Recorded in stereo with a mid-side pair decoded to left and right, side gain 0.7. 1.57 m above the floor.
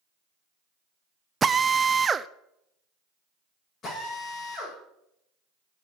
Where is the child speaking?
I don't hear a child speaking.